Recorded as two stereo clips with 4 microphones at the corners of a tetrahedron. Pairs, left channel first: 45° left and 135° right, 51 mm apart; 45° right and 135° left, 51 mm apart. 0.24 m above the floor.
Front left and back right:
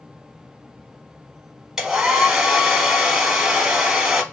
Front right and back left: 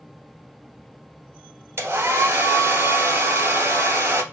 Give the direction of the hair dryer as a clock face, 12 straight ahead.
7 o'clock.